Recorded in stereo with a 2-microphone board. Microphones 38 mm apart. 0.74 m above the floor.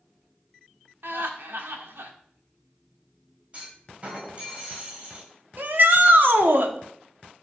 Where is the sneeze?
No sneeze in this recording.